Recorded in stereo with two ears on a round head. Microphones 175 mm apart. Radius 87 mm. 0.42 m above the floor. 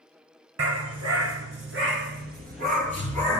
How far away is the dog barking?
About 2.5 m.